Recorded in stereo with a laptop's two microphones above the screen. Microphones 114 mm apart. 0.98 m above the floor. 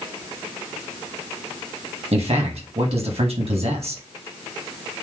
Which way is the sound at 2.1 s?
60° right (ahead or behind).